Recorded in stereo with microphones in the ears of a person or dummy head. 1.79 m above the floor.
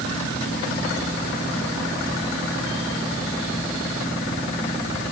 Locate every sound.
Only background noise.